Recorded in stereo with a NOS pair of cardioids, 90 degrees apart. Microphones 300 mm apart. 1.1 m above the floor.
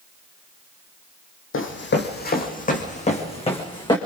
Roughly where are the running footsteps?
Ahead left.